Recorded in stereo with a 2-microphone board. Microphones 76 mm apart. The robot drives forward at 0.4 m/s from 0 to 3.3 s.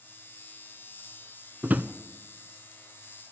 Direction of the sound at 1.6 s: 20° right (ahead or behind).